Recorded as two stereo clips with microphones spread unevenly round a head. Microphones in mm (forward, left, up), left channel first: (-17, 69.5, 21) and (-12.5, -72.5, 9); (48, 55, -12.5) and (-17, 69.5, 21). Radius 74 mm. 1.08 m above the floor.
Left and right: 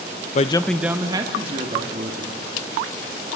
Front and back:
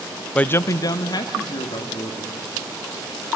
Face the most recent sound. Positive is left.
turn(degrees=-40)